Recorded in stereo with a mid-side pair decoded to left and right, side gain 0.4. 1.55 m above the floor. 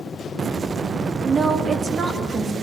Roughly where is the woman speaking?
Ahead right.